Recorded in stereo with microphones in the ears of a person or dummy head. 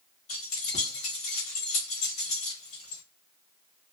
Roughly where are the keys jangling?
Left.